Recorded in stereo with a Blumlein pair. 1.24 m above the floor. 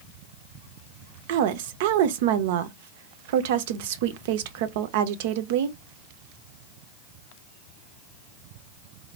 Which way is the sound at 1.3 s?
55° right.